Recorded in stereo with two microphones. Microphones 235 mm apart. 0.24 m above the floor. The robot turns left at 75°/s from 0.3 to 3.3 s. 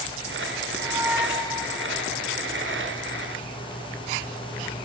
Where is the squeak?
140° right, 1.5 m; by 1.8 s 145° left, 1.5 m.